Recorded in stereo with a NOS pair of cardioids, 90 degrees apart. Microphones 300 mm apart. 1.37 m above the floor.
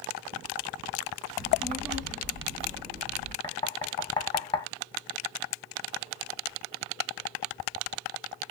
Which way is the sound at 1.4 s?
10° right.